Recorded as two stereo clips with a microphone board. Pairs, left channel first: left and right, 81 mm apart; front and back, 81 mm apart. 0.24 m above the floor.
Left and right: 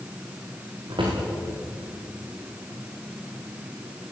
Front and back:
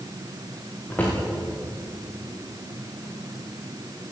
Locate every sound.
0.9 s a drawer: 70° right, 9 m